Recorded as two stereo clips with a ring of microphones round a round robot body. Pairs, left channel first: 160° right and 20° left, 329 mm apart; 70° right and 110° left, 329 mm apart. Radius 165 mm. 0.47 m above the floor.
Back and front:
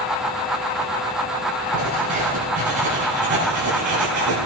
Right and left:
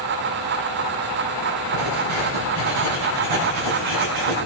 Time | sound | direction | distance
1.7 | writing | 90° left | 6 m